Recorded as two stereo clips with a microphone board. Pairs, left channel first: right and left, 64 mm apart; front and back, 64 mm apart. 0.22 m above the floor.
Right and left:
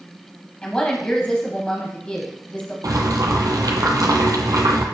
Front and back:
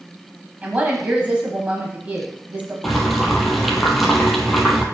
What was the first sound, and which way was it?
A woman speaking, 145° right.